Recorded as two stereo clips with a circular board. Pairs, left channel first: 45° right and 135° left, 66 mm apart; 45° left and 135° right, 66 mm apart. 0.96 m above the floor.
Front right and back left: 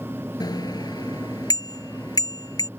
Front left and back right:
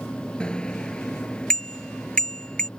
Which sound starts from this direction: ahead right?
A bicycle bell, at 0.4 s.